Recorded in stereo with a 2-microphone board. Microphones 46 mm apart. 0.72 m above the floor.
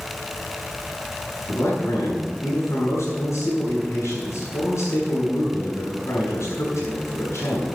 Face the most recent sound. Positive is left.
turn(degrees=70)  # may be behind; listen again after turning